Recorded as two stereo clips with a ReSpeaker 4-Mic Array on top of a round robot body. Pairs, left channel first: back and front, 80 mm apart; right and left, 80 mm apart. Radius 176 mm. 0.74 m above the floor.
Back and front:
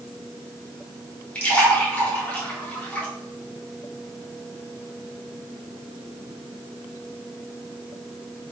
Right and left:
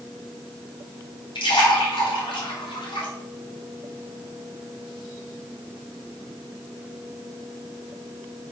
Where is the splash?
105° right, 3 m.